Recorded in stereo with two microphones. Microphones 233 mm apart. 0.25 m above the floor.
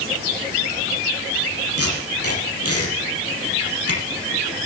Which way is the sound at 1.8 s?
80° left.